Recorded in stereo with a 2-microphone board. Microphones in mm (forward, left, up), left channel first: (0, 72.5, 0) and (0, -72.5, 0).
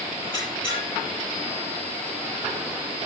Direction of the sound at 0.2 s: 30° left (ahead or behind).